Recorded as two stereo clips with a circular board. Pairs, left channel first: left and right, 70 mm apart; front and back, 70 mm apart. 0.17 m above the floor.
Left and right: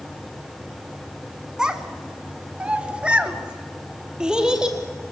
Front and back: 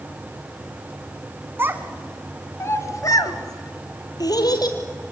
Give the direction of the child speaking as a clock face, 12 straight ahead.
5 o'clock.